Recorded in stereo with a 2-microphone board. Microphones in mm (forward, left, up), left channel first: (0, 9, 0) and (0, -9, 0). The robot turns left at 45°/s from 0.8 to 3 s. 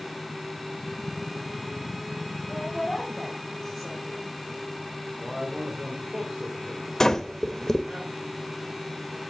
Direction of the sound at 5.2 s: 60° right (ahead or behind).